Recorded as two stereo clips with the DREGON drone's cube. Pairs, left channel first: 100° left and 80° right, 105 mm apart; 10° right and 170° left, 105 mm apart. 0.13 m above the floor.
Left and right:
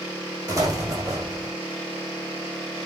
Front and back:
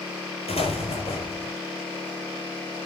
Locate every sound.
0.5 s an explosion: 25° right, 5 m